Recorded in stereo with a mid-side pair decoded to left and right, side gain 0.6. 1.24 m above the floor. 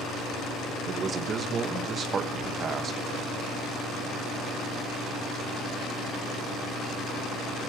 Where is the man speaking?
40° right, 1.1 m.